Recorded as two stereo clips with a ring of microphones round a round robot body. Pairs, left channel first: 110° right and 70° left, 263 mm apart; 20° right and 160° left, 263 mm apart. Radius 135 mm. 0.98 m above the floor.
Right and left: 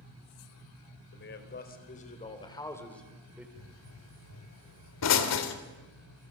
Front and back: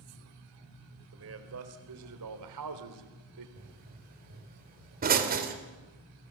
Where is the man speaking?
160° right, 4 m; by 3.5 s 150° left, 3.5 m.